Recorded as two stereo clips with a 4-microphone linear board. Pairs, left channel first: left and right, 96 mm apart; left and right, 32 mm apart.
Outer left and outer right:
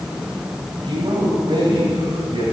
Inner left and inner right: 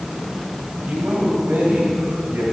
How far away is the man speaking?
About 3 m.